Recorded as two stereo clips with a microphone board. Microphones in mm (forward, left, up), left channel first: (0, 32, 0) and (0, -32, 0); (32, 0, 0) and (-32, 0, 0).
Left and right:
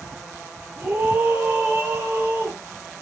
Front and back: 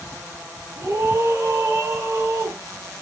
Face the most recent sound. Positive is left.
turn(degrees=-150)